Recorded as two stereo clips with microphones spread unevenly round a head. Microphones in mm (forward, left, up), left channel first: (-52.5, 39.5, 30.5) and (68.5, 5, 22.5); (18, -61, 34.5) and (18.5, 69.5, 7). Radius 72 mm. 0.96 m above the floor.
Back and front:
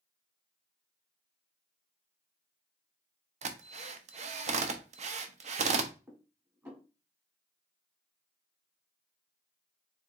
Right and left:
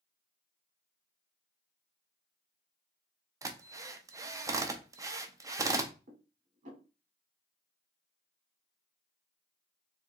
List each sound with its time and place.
3.4 s a drill: 20° left, 0.6 m
6.1 s dishes clattering: 55° left, 1.6 m